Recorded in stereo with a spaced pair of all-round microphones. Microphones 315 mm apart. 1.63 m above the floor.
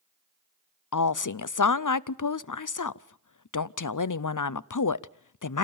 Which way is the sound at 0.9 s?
75° left (ahead or behind).